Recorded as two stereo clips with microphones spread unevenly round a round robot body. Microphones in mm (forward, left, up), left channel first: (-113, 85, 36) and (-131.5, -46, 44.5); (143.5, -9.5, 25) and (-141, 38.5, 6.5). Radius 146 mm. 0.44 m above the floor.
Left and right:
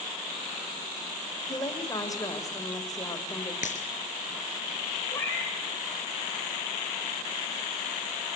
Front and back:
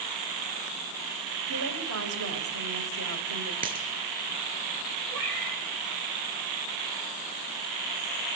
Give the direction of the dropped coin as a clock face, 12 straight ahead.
8 o'clock.